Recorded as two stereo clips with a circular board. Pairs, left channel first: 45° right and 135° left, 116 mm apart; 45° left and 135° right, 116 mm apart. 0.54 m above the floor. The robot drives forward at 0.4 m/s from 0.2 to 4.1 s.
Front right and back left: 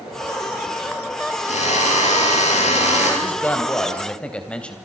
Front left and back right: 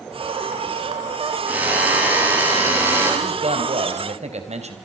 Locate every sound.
1.5 s a drill: 60° right, 7.5 m; by 3.1 s 65° right, 7 m
3.2 s a man speaking: 120° right, 3 m; by 4.8 s 125° right, 3.5 m